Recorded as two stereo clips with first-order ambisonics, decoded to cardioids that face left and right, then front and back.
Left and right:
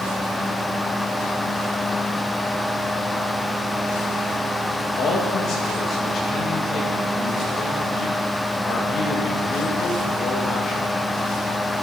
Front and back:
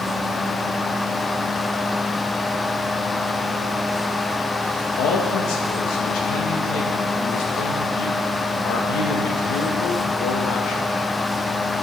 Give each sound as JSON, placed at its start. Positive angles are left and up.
{"t": 5.0, "sound": "a man speaking", "azimuth_deg": 35, "distance_m": 1.7}